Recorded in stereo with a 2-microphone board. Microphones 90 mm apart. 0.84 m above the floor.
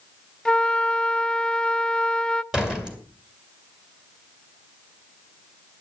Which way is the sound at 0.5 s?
10° left (ahead or behind).